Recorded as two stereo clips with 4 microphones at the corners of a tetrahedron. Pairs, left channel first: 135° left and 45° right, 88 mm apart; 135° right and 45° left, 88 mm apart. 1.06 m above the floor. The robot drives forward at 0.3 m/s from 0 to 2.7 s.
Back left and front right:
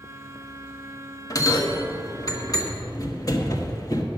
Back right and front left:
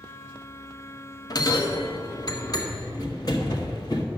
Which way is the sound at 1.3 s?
Straight behind.